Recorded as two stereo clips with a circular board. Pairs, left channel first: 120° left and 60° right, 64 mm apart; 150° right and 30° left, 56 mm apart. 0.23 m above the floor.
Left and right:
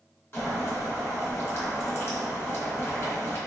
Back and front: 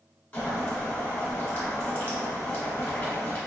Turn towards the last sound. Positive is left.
turn(degrees=155)